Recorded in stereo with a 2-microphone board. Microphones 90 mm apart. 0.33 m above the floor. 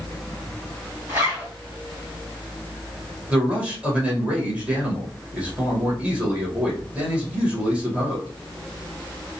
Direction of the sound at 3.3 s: 15° right (ahead or behind).